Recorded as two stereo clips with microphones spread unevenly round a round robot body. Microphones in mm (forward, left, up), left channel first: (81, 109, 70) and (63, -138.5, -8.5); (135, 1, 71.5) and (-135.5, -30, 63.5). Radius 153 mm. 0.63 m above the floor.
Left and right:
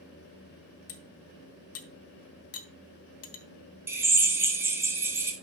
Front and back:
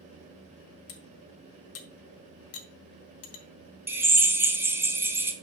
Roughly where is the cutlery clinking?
Ahead left.